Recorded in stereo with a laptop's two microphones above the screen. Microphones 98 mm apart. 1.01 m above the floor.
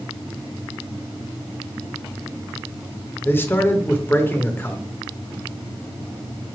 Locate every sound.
3.2 s a man speaking: 20° left (ahead or behind), 0.8 m